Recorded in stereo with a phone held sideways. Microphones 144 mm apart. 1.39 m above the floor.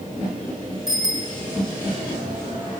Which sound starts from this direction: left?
A bicycle bell, at 0.9 s.